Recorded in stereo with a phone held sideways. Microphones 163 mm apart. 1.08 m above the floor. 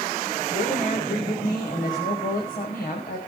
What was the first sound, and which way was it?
A woman speaking, 55° left (ahead or behind).